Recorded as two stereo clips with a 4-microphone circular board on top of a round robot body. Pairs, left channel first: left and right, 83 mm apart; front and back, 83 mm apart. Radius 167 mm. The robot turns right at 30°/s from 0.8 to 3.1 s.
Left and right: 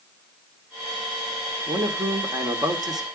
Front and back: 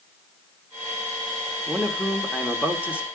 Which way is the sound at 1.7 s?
100° right.